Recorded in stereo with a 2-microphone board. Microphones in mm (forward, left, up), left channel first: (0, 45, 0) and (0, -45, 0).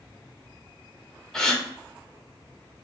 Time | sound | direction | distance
1.3 | a gasp | 5° left (ahead or behind) | 0.6 m